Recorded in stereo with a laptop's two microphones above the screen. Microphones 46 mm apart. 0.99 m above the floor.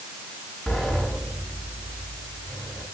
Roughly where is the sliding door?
Centre.